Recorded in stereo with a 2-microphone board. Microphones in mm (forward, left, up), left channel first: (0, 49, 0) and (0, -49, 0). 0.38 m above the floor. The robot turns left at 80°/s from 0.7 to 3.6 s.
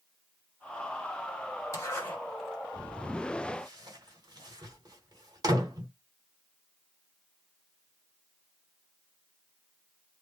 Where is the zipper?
35° left (ahead or behind), 1.5 m; by 5.9 s 40° right (ahead or behind), 1.5 m.